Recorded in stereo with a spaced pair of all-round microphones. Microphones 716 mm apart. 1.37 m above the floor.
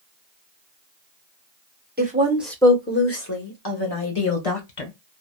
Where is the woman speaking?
15° right (ahead or behind), 1.1 m; by 4.9 s 55° left (ahead or behind), 1.6 m.